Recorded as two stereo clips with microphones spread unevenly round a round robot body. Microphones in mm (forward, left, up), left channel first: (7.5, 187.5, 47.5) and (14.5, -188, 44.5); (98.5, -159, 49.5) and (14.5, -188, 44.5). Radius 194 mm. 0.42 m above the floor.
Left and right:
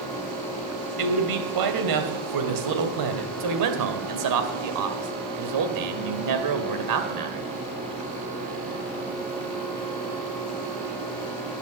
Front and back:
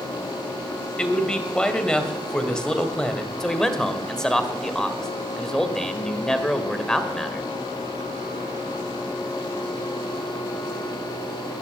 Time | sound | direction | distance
1.0 | a man speaking | 60° right | 2.5 m
3.4 | a man speaking | 65° right | 2 m